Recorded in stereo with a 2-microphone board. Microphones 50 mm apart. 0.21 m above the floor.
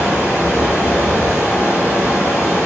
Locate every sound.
0.0 s running water: 65° left (ahead or behind), 1.1 m